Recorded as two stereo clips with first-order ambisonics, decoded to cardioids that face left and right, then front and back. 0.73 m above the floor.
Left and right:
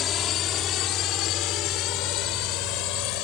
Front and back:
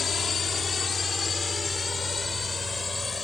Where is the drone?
60° left; by 3.2 s 75° left.